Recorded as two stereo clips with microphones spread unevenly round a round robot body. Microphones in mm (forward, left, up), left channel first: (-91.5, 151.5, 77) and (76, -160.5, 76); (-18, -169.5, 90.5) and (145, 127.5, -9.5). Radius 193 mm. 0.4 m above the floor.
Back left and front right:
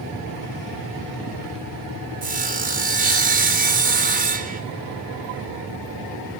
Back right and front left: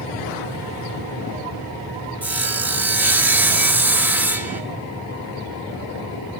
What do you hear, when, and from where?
2.2 s sawing: 5° right, 1.9 m